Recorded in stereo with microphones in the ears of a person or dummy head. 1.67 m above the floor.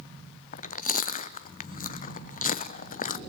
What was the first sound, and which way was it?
Chewing, 45° left (ahead or behind).